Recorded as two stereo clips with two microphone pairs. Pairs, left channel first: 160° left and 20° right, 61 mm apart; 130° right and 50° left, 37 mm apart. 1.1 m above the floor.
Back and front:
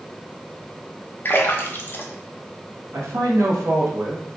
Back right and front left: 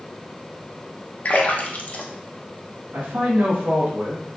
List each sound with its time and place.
1.2 s a splash: 160° right, 0.6 m
2.9 s a man speaking: 20° left, 1.3 m